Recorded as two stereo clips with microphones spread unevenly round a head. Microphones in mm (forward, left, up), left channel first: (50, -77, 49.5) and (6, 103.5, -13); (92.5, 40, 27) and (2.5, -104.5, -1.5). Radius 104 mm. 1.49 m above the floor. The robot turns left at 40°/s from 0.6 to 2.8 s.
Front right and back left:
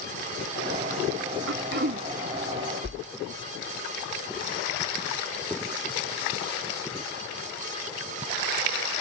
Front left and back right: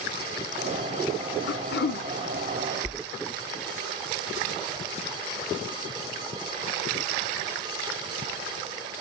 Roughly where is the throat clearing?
Left.